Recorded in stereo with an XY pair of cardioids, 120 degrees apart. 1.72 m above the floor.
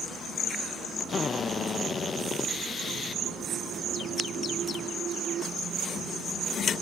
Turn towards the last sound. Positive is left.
turn(degrees=40)